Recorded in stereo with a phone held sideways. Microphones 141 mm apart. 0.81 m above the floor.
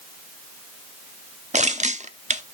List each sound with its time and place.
1.5 s crushing: 55° right (ahead or behind), 0.8 m